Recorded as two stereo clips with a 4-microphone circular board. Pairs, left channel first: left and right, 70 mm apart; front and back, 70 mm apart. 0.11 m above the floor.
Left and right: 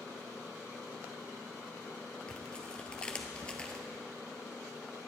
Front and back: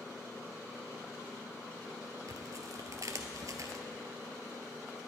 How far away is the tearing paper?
About 0.9 m.